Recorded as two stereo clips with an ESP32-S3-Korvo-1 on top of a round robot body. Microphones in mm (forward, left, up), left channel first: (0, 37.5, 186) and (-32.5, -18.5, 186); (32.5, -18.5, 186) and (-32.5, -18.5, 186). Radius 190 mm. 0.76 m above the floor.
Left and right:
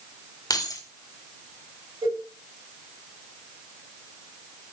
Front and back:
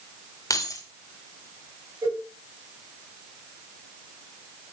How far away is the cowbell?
About 6.5 m.